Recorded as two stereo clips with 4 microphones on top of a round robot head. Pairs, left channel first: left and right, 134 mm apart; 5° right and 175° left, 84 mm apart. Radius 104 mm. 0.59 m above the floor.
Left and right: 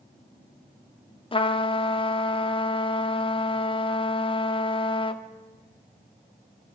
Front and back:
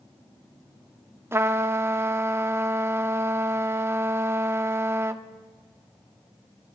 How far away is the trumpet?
About 1.4 m.